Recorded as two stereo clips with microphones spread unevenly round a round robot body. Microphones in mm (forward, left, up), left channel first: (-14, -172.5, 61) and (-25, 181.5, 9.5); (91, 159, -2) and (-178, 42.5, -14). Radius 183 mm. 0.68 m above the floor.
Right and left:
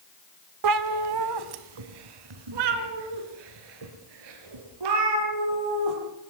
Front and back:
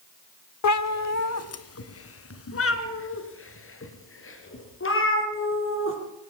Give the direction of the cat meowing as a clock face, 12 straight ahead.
10 o'clock.